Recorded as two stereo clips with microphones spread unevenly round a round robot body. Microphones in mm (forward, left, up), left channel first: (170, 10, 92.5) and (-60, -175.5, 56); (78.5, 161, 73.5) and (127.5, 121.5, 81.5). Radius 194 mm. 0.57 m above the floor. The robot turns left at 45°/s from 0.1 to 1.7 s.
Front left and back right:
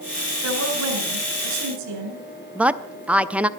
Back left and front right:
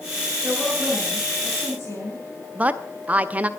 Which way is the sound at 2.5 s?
85° right.